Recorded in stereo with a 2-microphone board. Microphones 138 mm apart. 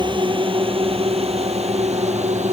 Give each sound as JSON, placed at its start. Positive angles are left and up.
{"t": 0.0, "sound": "a drone", "side_deg": -35}